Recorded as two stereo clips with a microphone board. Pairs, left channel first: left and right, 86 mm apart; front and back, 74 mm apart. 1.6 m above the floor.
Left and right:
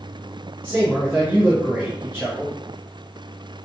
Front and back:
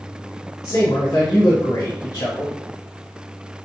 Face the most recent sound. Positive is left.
turn(degrees=-25)